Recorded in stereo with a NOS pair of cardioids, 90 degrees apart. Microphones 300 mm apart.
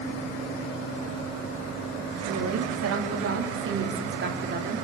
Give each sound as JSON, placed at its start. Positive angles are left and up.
{"t": 2.2, "sound": "a woman speaking", "azimuth_deg": -60, "distance_m": 4.0}